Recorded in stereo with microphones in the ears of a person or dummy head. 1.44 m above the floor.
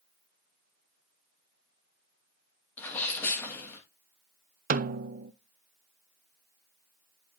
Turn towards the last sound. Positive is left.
turn(degrees=-45)  # may be behind; listen again after turning